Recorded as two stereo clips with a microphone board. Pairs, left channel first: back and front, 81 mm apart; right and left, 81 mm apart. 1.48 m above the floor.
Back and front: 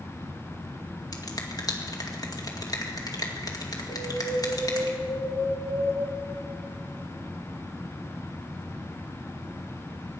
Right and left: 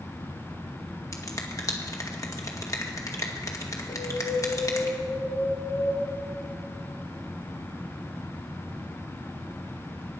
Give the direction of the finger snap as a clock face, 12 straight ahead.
5 o'clock.